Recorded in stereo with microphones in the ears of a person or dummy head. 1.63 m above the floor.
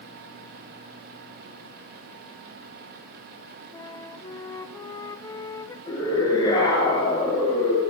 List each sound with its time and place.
3.7 s a flute: 15° left (ahead or behind), 1.0 m
5.9 s a scream: 20° left (ahead or behind), 9.5 m